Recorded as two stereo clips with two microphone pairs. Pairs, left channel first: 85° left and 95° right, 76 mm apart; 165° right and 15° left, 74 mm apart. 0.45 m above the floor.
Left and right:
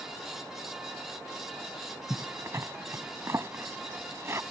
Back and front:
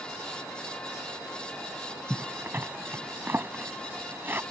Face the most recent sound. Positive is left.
turn(degrees=-45)